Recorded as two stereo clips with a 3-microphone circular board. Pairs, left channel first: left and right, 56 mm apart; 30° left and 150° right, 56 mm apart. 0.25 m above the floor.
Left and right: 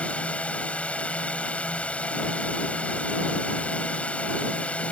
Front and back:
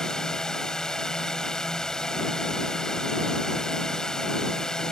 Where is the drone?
90° left.